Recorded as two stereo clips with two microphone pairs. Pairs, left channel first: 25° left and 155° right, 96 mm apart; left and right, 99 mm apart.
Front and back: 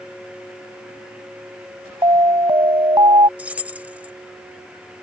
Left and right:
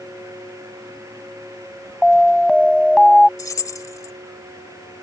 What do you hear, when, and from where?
2.0 s an alarm: 175° left
3.4 s keys jangling: 135° left